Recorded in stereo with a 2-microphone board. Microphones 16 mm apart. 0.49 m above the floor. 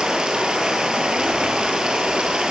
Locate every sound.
0.0 s running water: 70° right (ahead or behind), 8 m